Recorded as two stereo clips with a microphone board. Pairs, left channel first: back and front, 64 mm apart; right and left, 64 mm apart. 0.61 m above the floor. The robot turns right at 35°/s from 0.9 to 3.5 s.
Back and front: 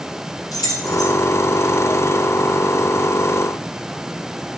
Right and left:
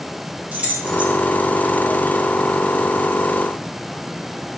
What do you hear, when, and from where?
0.5 s keys jangling: 155° left, 3 m; by 1.1 s 160° left, 3 m